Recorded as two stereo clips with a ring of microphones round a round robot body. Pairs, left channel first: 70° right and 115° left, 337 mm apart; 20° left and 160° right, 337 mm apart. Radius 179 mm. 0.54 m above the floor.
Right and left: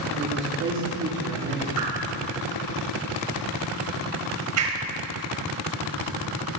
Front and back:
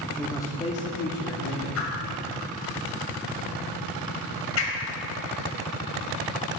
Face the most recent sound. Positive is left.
turn(degrees=70)